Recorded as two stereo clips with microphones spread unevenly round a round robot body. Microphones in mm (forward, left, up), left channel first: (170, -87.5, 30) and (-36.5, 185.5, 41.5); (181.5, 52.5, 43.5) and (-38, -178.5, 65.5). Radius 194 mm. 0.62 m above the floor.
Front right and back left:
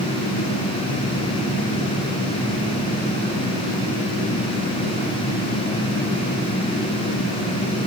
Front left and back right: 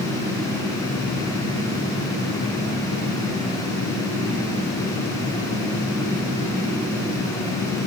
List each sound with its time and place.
Only background noise.